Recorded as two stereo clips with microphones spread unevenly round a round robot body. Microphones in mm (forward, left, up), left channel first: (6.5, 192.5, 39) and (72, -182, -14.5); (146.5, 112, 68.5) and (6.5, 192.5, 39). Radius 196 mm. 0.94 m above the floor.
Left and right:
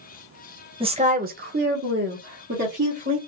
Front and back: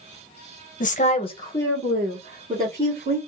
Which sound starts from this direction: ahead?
A woman speaking, at 0.8 s.